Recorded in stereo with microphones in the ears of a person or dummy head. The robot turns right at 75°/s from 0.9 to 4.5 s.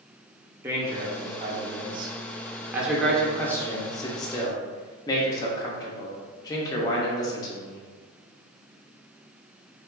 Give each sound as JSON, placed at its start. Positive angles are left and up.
{"t": 0.6, "sound": "a man speaking", "side_deg": -10, "distance_m": 0.6}